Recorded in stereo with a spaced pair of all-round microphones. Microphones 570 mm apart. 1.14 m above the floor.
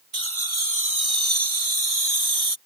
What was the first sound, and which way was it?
Laughter, 65° right (ahead or behind).